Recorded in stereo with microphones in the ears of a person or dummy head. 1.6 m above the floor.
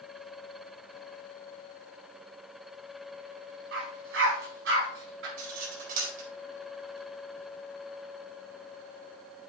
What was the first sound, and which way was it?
A dog barking, 70° right (ahead or behind).